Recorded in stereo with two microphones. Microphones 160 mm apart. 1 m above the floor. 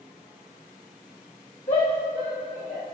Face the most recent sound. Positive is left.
turn(degrees=85)